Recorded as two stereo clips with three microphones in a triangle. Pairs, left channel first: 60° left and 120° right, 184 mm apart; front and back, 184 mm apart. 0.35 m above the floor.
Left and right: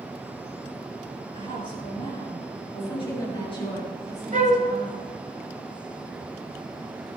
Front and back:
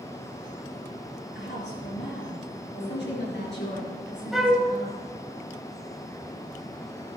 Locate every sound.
1.4 s a woman speaking: straight ahead, 5.5 m
2.8 s a woman speaking: 5° right, 5.5 m
4.3 s a flute: 90° right, 1.3 m